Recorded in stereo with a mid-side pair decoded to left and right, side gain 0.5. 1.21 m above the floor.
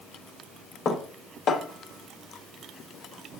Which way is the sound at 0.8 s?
60° left.